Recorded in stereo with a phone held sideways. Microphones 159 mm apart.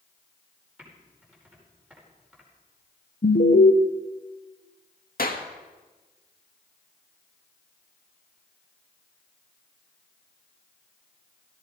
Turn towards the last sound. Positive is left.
turn(degrees=65)  # may be behind; listen again after turning